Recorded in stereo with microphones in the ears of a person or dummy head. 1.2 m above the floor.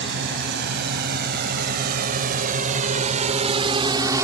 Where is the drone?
50° right (ahead or behind); by 4.2 s 10° right (ahead or behind).